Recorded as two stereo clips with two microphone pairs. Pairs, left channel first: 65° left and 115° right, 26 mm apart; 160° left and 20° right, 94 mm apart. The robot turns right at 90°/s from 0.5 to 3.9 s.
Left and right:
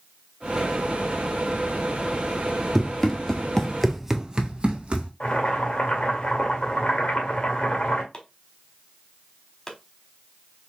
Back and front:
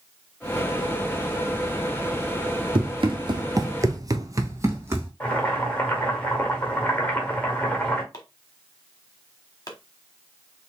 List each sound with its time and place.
2.8 s running footsteps: 35° right, 1.3 m; by 5.1 s 80° right, 1.5 m
5.2 s boiling: 90° left, 1.5 m
8.1 s chopping: 120° left, 1.3 m